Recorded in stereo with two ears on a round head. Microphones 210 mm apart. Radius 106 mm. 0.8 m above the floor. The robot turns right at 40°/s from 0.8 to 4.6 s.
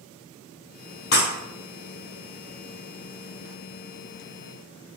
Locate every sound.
1.1 s breaking glass: 45° left (ahead or behind), 1.8 m; by 1.3 s 50° left (ahead or behind), 1.8 m